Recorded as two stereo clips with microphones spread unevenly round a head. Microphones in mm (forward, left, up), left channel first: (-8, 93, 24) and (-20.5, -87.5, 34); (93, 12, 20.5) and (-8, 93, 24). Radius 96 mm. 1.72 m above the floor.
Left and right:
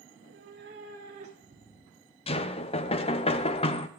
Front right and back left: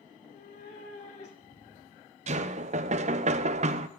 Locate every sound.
0.1 s a cat meowing: 70° right, 2.5 m; by 2.2 s 20° left, 1.3 m
2.3 s knocking: 140° left, 0.6 m